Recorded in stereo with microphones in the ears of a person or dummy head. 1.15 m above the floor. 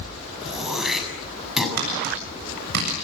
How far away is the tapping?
About 7.5 m.